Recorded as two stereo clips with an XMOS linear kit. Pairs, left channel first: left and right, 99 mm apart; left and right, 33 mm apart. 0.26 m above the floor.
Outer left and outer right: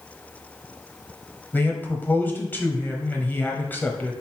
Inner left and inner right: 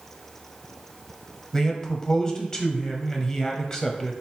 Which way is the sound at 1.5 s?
20° left (ahead or behind).